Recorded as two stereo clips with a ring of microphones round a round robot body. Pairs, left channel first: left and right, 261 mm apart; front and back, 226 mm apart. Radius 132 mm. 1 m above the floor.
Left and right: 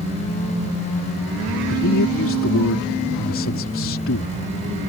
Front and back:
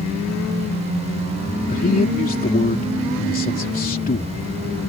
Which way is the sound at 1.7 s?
50° left.